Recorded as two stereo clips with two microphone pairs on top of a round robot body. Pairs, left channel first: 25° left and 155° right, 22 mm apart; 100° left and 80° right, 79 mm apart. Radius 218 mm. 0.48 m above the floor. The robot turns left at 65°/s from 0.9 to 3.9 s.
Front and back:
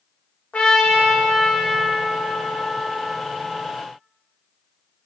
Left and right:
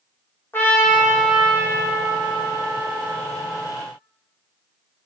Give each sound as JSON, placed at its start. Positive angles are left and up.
{"t": 0.5, "sound": "a trumpet", "azimuth_deg": 35, "distance_m": 0.8}